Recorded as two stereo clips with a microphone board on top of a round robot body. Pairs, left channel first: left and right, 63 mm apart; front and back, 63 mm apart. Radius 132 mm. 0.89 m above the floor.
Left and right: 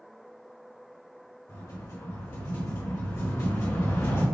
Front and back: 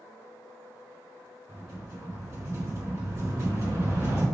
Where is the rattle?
130° left, 1.9 m.